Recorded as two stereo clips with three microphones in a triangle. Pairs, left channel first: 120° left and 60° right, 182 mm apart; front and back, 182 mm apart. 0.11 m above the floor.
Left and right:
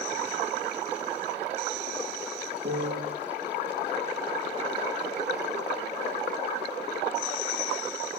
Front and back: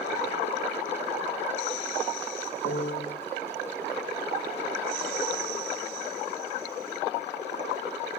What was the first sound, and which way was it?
A piano, 30° right.